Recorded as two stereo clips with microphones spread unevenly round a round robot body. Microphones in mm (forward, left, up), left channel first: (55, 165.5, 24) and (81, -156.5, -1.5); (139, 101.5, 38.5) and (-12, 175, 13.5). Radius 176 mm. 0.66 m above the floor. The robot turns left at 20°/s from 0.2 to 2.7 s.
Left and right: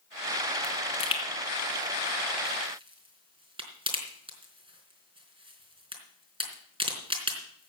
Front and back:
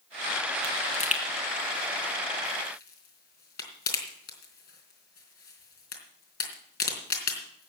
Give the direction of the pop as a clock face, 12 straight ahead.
11 o'clock.